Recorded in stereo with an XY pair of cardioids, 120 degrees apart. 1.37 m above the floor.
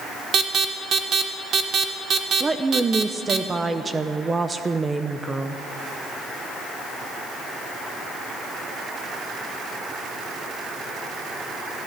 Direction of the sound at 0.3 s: 45° right.